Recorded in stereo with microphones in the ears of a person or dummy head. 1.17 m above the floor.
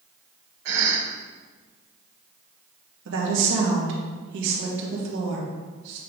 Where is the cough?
70° right (ahead or behind), 2.5 m.